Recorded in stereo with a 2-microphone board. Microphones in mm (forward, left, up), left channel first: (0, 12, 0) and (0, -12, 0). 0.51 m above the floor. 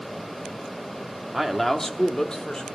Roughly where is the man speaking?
Centre.